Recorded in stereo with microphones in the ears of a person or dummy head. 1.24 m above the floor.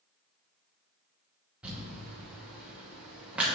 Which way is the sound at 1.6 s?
5° right (ahead or behind).